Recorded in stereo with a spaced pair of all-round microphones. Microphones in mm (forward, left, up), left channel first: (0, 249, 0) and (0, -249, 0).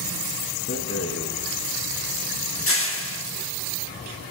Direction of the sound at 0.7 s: 30° left (ahead or behind).